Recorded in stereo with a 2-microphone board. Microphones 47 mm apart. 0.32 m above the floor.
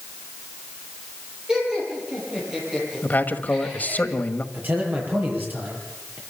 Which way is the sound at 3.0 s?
40° left (ahead or behind).